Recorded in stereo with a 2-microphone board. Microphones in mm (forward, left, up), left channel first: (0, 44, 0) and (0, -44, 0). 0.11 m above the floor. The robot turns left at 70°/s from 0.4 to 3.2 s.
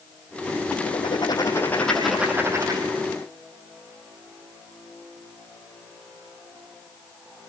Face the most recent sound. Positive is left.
turn(degrees=-85)